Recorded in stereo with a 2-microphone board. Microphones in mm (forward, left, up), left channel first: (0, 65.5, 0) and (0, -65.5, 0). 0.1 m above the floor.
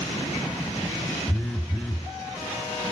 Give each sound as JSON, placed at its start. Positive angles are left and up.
{"t": 1.3, "sound": "a phone buzzing", "side_deg": 5, "distance_m": 0.8}